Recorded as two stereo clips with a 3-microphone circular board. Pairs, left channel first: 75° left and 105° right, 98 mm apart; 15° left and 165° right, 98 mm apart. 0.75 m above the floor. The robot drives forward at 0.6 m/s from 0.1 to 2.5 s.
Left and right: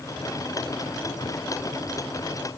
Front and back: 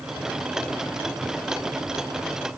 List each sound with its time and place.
Only background noise.